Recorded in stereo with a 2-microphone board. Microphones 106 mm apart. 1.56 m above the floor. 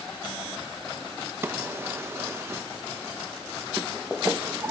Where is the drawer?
25° right (ahead or behind), 0.7 m.